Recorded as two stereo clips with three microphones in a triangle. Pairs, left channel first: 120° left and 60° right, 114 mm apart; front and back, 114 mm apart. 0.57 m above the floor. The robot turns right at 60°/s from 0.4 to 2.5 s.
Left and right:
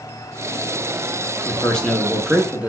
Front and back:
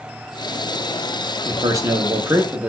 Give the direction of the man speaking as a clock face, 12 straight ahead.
6 o'clock.